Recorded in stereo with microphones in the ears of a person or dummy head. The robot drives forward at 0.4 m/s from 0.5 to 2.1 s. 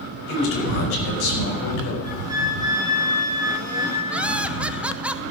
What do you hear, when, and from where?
0.3 s a man speaking: 85° left, 5 m; by 1.9 s 80° left, 5 m
2.0 s a flute: 15° right (ahead or behind), 1.9 m
4.1 s laughter: 5° right (ahead or behind), 0.7 m